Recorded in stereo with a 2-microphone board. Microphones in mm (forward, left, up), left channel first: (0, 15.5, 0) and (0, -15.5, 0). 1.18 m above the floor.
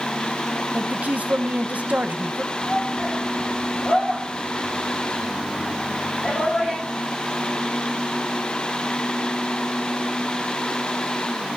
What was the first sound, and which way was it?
A woman speaking, 60° right (ahead or behind).